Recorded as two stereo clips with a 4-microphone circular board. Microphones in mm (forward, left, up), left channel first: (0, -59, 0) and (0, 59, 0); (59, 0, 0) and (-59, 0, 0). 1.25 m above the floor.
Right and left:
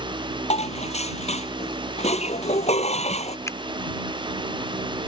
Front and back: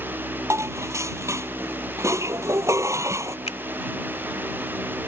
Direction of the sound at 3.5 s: 25° right.